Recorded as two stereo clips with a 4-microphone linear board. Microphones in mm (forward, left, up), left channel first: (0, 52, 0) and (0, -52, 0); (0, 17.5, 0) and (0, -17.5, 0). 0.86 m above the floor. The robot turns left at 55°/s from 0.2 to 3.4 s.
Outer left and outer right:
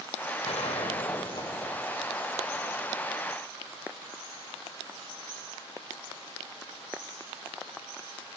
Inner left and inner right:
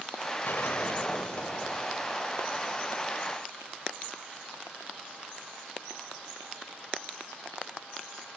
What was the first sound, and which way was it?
A gunshot, 95° left.